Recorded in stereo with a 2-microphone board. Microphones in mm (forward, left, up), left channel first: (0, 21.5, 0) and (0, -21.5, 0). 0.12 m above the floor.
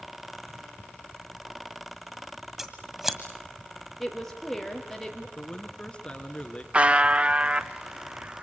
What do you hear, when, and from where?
2.6 s scissors: 10° right (ahead or behind), 1.7 m
4.0 s a woman speaking: 5° left (ahead or behind), 3.5 m
5.4 s a man speaking: 25° left (ahead or behind), 1.7 m
6.7 s a buzzer: 30° right (ahead or behind), 0.7 m